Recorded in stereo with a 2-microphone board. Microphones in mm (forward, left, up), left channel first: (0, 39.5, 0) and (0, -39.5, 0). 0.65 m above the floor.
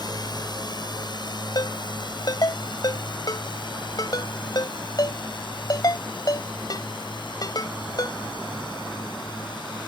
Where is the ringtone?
55° left (ahead or behind).